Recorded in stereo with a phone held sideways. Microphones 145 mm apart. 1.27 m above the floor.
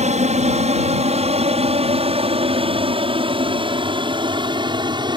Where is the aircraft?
55° right (ahead or behind); by 5.2 s 30° right (ahead or behind).